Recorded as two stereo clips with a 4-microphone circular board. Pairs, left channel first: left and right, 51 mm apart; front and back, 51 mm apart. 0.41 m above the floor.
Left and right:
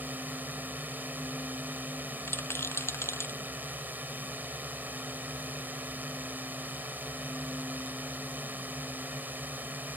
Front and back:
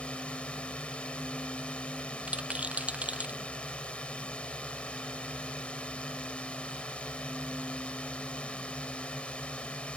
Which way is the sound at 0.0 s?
60° right.